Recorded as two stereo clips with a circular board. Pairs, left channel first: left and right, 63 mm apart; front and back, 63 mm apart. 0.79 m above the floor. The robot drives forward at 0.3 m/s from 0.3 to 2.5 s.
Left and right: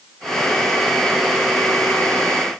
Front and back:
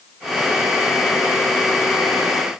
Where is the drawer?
No drawer in this recording.